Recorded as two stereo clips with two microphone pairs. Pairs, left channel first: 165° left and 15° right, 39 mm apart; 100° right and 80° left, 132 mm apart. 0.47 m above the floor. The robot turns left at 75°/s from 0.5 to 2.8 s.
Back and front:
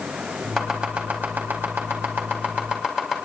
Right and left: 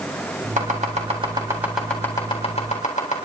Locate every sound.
0.6 s chopping: 85° left, 3.5 m; by 3.2 s 85° right, 3.5 m